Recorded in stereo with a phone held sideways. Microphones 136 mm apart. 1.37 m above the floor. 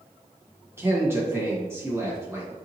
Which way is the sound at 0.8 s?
20° right (ahead or behind).